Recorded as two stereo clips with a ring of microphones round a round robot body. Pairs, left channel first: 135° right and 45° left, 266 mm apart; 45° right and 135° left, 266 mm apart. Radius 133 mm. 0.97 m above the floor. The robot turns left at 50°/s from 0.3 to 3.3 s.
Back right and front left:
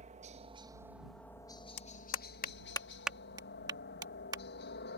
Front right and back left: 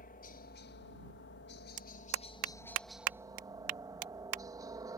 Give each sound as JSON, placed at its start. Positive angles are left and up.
{"t": 0.0, "sound": "a helicopter", "azimuth_deg": -5}
{"t": 1.8, "sound": "a clap", "azimuth_deg": -160}